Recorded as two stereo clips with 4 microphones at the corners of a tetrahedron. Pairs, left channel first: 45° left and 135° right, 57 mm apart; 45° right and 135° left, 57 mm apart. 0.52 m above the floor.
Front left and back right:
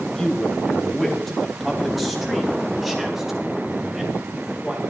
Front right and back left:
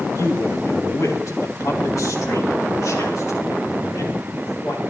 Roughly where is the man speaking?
Ahead right.